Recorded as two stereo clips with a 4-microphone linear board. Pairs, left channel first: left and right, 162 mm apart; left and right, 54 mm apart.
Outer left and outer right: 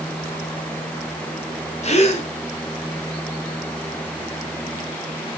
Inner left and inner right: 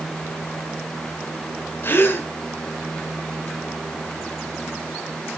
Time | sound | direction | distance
1.8 | a gasp | 40° left (ahead or behind) | 1.2 m